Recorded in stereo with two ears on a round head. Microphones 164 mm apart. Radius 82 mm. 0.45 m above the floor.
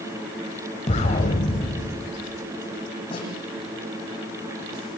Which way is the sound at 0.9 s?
40° left (ahead or behind).